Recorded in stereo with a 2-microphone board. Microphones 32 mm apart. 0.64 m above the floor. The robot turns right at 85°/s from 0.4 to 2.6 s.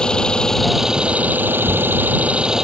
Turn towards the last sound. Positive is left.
turn(degrees=-20)